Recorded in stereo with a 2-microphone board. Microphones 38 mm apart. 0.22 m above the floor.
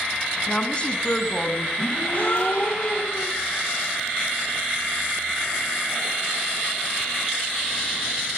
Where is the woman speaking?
30° left (ahead or behind), 1.7 m.